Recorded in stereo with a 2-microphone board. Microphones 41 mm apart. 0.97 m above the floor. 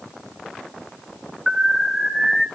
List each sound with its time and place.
1.5 s an alarm: 10° right (ahead or behind), 3.5 m